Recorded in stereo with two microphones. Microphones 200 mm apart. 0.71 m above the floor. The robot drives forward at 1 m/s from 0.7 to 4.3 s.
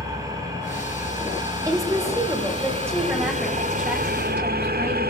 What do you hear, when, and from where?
0.0 s an engine running: 20° right (ahead or behind), 5 m; by 5.1 s 50° right (ahead or behind), 1.9 m
1.6 s a woman speaking: 15° right (ahead or behind), 3 m; by 5.1 s 10° right (ahead or behind), 5.5 m